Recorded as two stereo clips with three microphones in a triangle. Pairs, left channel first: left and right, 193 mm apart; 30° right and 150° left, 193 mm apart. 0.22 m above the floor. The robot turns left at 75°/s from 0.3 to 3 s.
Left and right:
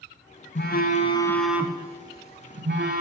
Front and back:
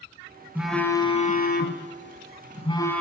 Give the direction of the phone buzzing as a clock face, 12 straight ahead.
10 o'clock.